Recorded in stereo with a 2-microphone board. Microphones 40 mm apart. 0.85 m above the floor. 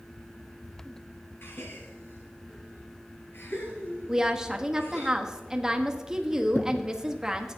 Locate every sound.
1.4 s a gasp: 75° left (ahead or behind), 2.5 m
4.1 s a woman speaking: 15° right (ahead or behind), 1.1 m
6.5 s a thud: 50° left (ahead or behind), 0.6 m